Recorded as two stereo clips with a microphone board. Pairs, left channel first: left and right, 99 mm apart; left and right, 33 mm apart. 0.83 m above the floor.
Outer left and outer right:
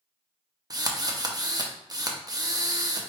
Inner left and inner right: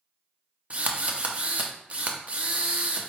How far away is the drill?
About 0.6 m.